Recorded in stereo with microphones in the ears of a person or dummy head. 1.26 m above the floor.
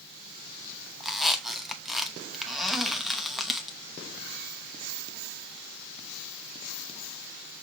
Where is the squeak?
Centre (ahead or behind), 0.9 m.